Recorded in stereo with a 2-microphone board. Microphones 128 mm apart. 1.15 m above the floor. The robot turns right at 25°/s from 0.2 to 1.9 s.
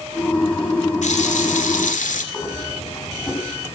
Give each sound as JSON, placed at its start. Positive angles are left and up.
{"t": 1.0, "sound": "a running tap", "side_deg": 70, "distance_m": 2.5}
{"t": 2.3, "sound": "breathing", "side_deg": 25, "distance_m": 7.5}